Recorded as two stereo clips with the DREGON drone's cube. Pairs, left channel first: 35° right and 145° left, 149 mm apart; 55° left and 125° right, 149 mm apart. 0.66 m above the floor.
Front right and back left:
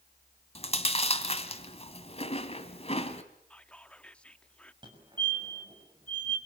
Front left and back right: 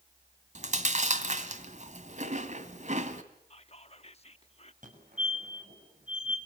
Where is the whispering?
45° left, 0.8 m.